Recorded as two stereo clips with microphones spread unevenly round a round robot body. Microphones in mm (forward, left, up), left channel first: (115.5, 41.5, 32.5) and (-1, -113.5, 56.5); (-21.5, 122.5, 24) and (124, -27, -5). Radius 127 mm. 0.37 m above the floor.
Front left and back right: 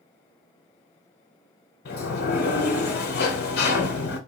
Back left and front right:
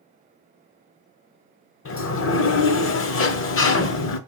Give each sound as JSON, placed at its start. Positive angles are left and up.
{"t": 1.9, "sound": "a sliding door", "azimuth_deg": 100, "distance_m": 0.6}